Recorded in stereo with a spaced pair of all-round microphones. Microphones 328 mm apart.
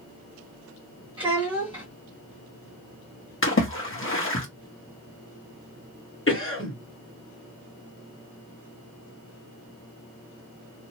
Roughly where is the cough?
Left.